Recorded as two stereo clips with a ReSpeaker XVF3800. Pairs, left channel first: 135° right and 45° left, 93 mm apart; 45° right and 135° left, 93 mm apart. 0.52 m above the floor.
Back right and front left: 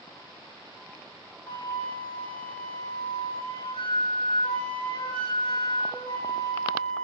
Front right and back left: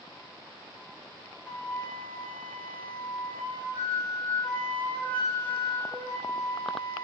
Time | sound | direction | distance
1.5 | a flute | 115° right | 5 m